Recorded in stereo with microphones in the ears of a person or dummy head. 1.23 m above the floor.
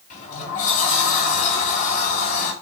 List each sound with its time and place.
0.1 s a sliding door: 45° left (ahead or behind), 2.5 m